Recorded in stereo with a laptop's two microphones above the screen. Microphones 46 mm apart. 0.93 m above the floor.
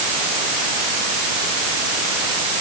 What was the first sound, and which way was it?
Only background noise.